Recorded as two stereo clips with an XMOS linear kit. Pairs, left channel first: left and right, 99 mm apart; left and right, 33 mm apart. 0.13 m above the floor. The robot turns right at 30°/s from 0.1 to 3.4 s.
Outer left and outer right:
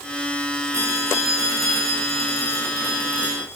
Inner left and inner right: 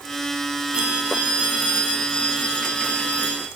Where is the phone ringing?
30° right, 9 m; by 3.5 s 50° left, 9 m.